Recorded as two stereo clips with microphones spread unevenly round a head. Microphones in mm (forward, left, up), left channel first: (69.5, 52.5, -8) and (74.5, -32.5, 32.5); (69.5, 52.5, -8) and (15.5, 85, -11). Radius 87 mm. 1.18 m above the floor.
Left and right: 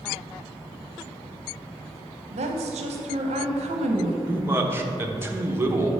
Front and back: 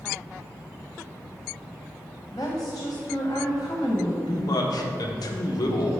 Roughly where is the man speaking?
Ahead.